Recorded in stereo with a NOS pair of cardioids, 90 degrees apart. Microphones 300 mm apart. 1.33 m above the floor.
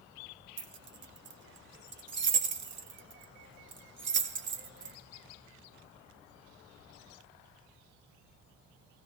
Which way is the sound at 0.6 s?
40° right.